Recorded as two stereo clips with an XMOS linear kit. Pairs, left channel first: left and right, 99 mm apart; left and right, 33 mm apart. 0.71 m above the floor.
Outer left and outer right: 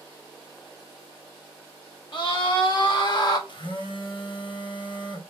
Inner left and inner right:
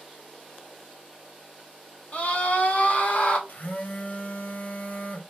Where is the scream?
50° left (ahead or behind), 1.5 m; by 3.4 s 40° left (ahead or behind), 1.1 m.